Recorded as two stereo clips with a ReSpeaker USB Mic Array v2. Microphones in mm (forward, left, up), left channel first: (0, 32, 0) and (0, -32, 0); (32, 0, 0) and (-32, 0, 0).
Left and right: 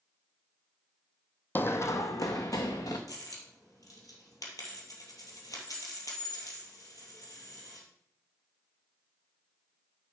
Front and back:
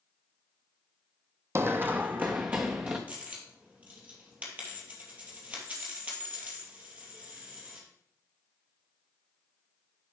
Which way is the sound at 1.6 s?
145° left.